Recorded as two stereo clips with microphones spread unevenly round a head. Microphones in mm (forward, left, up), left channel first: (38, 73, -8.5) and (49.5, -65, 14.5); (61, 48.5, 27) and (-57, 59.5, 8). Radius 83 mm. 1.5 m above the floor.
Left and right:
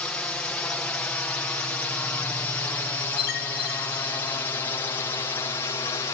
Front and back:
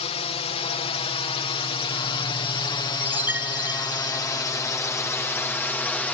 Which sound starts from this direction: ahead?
A drone, at 0.0 s.